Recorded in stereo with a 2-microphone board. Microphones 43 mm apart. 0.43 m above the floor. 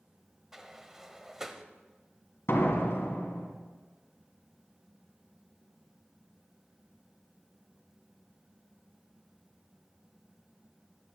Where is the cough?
No cough in this recording.